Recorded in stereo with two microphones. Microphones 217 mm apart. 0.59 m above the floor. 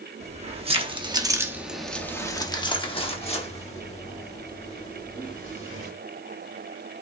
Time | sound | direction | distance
0.2 | keys jangling | 30° right (ahead or behind) | 0.9 m